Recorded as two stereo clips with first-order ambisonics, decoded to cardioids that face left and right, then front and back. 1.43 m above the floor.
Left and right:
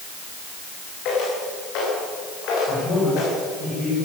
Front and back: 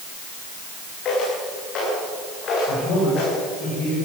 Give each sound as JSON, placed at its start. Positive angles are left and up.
{"t": 1.1, "sound": "footsteps", "azimuth_deg": 55, "distance_m": 10.0}
{"t": 2.7, "sound": "a man speaking", "azimuth_deg": 40, "distance_m": 7.0}